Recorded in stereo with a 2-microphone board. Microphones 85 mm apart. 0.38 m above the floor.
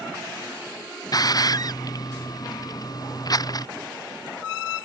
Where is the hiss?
50° left (ahead or behind).